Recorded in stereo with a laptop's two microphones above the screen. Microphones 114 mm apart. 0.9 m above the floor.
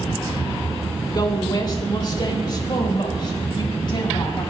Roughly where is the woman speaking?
Left.